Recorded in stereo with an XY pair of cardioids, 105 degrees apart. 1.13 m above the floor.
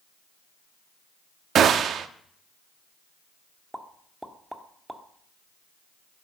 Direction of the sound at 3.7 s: 5° right.